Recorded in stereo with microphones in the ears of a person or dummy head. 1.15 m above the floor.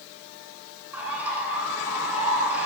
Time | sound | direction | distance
0.9 | a bird | 10° right (ahead or behind) | 7 m